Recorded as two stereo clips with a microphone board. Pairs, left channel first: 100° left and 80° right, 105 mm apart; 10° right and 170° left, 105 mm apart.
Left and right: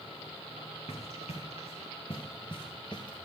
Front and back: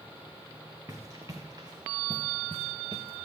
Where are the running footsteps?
105° left, 1.9 m; by 3.2 s 145° left, 1.7 m.